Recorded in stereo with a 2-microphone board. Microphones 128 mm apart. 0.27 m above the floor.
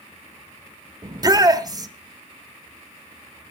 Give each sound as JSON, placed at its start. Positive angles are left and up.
{"t": 1.0, "sound": "a shout", "side_deg": -30, "distance_m": 1.3}